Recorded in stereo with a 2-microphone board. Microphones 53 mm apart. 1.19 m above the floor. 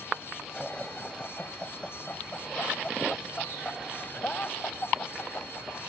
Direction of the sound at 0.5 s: 15° left (ahead or behind).